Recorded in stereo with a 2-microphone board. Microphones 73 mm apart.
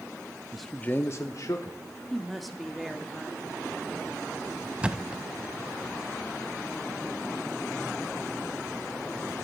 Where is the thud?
15° right (ahead or behind), 0.5 m.